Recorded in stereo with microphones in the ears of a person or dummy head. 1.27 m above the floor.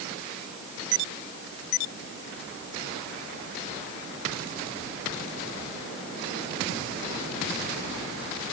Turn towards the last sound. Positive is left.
No sound to turn to.